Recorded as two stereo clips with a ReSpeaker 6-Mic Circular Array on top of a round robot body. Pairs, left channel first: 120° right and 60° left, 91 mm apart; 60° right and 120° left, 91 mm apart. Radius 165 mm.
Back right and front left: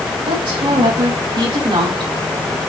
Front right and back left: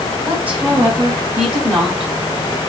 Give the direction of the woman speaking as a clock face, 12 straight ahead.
11 o'clock.